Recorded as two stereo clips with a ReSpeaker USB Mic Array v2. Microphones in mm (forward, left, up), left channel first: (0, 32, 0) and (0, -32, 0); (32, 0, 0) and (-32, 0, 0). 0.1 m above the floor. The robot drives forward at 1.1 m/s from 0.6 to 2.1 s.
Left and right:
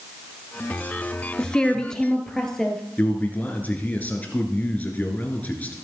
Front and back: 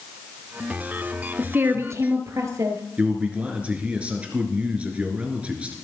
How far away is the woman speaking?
About 1.2 m.